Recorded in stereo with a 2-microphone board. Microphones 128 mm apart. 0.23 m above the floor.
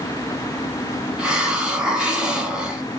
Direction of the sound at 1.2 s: 5° right (ahead or behind).